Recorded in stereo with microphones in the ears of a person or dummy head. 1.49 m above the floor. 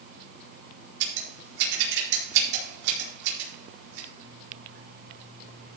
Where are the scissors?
70° right (ahead or behind), 4.5 m.